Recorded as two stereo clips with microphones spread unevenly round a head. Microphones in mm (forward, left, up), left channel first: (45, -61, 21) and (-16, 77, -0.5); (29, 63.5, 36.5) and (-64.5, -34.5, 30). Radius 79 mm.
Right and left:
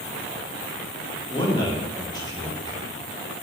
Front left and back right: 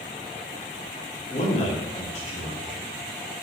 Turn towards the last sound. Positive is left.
turn(degrees=5)